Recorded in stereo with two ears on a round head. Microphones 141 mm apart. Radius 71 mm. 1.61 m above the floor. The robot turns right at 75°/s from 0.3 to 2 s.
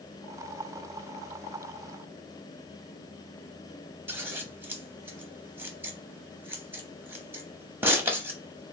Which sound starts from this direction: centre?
Scissors, at 4.1 s.